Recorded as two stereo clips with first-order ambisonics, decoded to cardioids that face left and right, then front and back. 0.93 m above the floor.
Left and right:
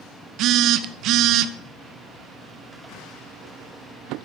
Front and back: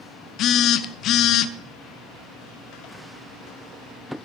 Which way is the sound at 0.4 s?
50° right.